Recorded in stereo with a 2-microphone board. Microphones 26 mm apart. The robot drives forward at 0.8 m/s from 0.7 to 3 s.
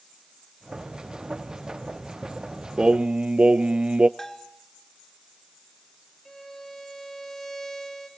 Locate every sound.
2.8 s singing: 35° right (ahead or behind), 0.6 m; by 4.1 s 50° right (ahead or behind), 0.5 m
4.2 s a bell: 15° left (ahead or behind), 1.0 m
6.2 s a violin: 15° left (ahead or behind), 3.5 m